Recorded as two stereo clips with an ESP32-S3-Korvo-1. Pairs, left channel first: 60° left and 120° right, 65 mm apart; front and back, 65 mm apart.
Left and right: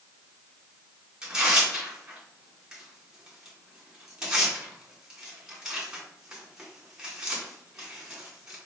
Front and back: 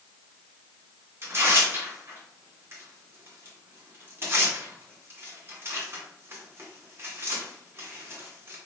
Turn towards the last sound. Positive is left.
turn(degrees=165)